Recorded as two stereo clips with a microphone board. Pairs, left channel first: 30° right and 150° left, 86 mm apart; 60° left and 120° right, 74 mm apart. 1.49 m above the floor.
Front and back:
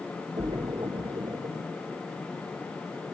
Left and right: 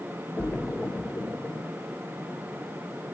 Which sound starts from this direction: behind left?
A splash, at 0.4 s.